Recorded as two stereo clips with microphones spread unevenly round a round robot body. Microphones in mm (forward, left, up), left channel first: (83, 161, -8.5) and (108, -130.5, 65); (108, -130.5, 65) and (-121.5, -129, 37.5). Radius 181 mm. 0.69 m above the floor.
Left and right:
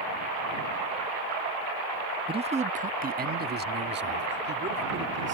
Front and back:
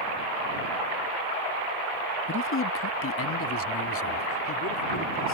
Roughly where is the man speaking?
Ahead.